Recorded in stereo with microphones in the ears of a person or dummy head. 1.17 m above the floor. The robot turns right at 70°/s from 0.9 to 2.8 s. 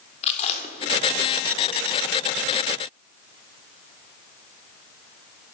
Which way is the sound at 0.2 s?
40° left (ahead or behind).